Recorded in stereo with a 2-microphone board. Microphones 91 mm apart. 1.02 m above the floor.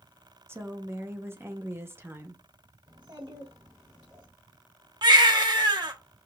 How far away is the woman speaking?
About 0.7 m.